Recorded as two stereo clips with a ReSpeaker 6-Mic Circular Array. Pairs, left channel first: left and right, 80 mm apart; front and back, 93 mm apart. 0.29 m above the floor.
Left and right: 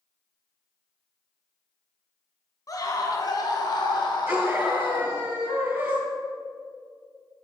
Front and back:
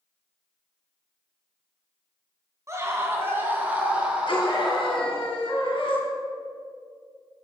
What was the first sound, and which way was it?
A scream, 125° left.